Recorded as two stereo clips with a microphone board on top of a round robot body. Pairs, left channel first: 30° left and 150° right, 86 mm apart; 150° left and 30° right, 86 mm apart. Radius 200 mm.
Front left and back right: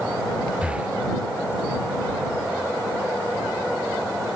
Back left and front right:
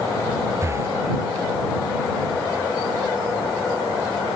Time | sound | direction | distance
0.6 | breathing | 75° right | ?